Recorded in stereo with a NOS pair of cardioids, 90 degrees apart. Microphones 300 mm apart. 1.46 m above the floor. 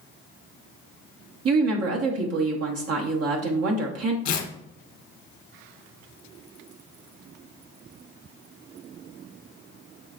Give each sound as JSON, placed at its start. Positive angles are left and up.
{"t": 1.4, "sound": "a woman speaking", "azimuth_deg": -55, "distance_m": 1.1}
{"t": 4.2, "sound": "tearing paper", "azimuth_deg": 65, "distance_m": 1.0}